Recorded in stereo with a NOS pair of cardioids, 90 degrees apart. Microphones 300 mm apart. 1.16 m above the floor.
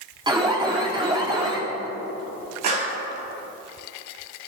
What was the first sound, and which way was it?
An alarm, 15° right.